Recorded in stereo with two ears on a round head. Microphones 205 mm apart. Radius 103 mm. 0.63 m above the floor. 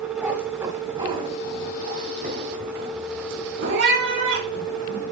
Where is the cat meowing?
5° right (ahead or behind), 1.9 m; by 5.0 s 60° right (ahead or behind), 3.5 m.